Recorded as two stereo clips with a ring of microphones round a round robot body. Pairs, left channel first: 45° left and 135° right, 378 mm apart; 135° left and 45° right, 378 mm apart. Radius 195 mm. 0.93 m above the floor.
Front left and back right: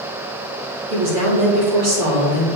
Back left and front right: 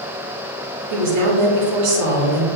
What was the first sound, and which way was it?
A woman speaking, 85° right.